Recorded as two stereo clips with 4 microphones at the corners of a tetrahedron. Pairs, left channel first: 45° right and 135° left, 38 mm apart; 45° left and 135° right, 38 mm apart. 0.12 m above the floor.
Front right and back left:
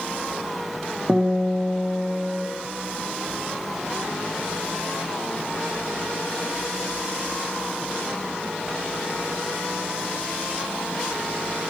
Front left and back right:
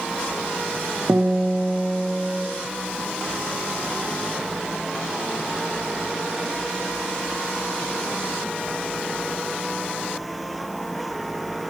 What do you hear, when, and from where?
1.1 s a guitar: 165° right, 4.5 m